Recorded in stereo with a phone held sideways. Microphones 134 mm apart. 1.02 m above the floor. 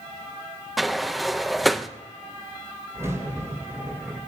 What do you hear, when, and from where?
0.8 s a sliding door: centre (ahead or behind), 0.6 m
2.9 s a crack: 20° right (ahead or behind), 8 m